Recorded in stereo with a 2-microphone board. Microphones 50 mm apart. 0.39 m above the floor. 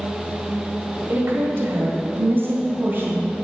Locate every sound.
1.1 s a woman speaking: 45° right (ahead or behind), 1.8 m; by 3.4 s 40° right (ahead or behind), 3 m